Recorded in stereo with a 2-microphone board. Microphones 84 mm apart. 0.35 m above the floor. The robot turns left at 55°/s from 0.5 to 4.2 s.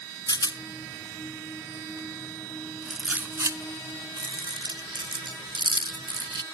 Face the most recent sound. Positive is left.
turn(degrees=-70)  # may be behind; listen again after turning